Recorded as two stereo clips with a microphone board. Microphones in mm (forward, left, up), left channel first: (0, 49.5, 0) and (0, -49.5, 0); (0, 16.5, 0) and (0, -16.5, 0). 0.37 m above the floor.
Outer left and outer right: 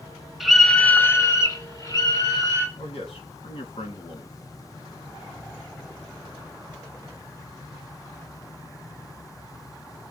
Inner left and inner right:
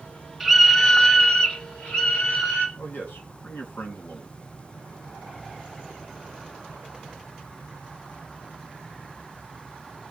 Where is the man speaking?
75° left (ahead or behind), 3.5 m.